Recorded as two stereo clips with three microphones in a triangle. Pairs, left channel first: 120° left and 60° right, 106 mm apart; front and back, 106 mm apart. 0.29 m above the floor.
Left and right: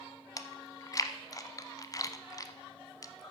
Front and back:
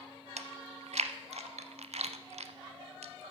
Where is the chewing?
175° left, 0.6 m.